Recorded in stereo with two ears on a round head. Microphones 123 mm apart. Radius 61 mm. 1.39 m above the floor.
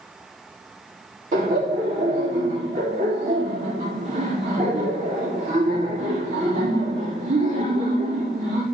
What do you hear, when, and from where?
1.3 s laughter: 60° right (ahead or behind), 3.5 m